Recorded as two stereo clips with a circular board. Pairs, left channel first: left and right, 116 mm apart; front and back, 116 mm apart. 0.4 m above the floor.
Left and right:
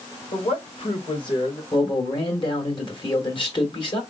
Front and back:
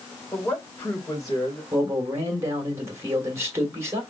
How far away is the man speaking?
About 2 m.